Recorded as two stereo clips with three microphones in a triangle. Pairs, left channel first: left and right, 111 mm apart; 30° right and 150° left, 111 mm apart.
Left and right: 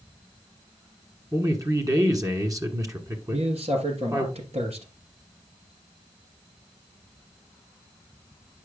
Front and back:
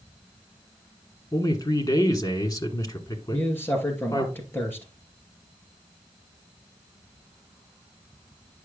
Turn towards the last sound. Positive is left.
turn(degrees=-100)